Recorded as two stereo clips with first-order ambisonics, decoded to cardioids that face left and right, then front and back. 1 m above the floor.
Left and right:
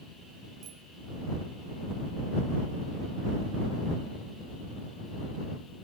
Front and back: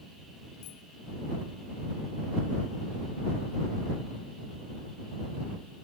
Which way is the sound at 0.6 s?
35° right.